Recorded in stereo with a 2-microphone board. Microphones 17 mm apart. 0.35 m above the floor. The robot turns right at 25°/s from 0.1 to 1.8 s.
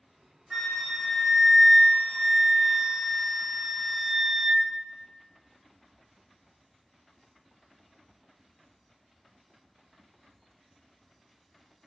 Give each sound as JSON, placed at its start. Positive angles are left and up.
{"t": 0.5, "sound": "a flute", "azimuth_deg": -170, "distance_m": 0.8}